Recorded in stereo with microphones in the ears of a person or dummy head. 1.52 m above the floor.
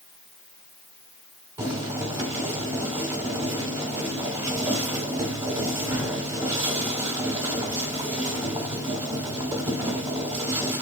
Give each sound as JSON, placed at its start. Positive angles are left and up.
{"t": 1.6, "sound": "boiling", "side_deg": -20, "distance_m": 3.0}